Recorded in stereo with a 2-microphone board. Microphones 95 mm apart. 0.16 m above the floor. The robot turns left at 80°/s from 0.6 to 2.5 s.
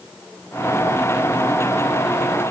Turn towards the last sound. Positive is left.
No sound to turn to.